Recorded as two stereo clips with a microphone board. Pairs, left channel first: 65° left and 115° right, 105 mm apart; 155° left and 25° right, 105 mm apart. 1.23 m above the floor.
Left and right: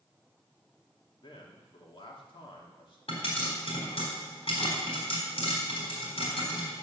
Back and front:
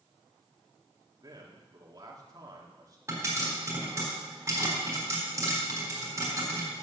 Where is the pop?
40° left, 3.5 m.